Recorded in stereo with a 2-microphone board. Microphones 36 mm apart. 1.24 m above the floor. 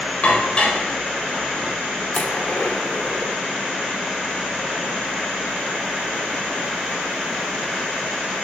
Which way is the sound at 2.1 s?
40° left (ahead or behind).